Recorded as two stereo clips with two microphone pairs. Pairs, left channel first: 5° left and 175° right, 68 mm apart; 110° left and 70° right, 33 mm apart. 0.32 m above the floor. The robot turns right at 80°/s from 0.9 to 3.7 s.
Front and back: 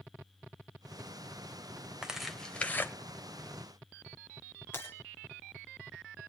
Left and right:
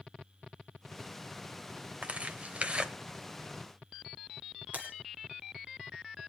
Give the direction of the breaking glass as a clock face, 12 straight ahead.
2 o'clock.